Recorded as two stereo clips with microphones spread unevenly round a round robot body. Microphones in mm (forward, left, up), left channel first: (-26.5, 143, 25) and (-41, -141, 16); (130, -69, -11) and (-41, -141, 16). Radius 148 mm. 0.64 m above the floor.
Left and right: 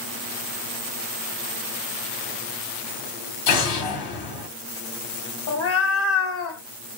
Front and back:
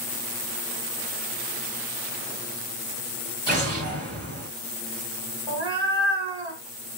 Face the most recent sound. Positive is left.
turn(degrees=120)